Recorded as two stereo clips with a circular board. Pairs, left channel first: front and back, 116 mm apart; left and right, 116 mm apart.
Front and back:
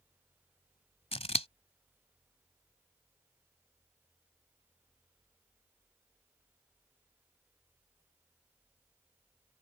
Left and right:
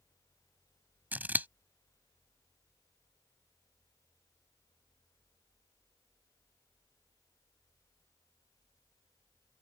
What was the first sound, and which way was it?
Scissors, 15° right.